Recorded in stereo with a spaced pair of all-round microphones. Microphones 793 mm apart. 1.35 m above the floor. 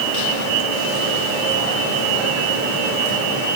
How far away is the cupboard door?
No cupboard door in this recording.